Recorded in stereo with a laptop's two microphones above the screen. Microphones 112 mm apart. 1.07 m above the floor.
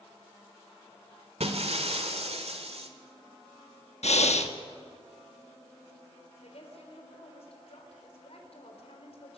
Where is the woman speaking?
65° left (ahead or behind), 4.5 m.